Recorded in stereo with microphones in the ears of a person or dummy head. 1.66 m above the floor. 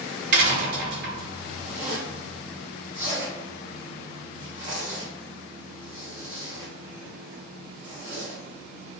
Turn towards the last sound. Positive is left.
turn(degrees=-40)  # may be behind; listen again after turning